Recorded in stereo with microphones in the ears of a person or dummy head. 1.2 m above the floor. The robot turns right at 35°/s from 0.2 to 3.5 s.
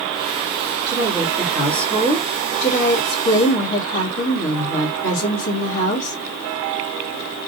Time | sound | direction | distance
0.9 | a woman speaking | 20° right | 2 m